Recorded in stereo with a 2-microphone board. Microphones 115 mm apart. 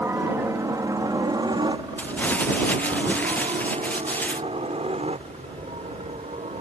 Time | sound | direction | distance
0.0 | a helicopter | 20° right (ahead or behind) | ?
2.0 | crumpling | 15° left (ahead or behind) | ?